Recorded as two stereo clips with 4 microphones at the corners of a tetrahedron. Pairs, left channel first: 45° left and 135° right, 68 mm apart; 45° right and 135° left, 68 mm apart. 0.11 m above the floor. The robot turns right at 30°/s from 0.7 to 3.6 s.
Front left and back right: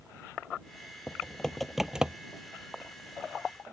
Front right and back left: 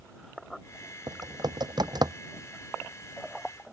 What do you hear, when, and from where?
1.1 s typing on a keyboard: 115° left; by 2.1 s 150° left